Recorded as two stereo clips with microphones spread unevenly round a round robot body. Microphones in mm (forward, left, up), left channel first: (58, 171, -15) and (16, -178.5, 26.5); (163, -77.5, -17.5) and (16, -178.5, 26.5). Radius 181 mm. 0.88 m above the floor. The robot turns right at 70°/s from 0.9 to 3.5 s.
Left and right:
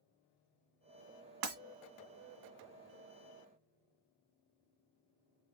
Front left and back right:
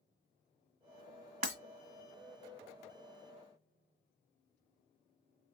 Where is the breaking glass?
115° right, 1.7 m; by 1.6 s 105° right, 1.7 m.